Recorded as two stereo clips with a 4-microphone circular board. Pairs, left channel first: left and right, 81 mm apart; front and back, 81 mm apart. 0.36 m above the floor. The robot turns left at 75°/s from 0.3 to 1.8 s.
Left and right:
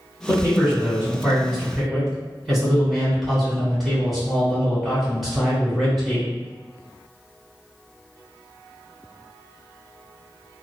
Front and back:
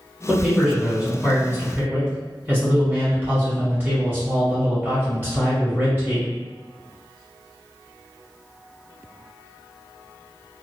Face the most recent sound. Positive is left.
turn(degrees=180)